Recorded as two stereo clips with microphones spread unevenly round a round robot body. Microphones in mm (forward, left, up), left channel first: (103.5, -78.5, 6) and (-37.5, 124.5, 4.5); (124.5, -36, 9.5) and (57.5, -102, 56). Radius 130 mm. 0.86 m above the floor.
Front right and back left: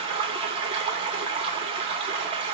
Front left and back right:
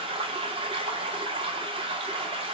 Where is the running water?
Straight behind, 0.8 m.